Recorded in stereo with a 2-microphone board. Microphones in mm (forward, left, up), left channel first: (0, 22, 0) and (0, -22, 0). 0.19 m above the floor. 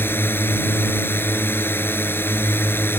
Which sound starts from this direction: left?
A drone, at 0.0 s.